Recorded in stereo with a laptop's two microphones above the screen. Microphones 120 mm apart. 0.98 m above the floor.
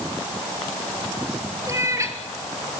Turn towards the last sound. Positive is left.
turn(degrees=-25)  # may be behind; listen again after turning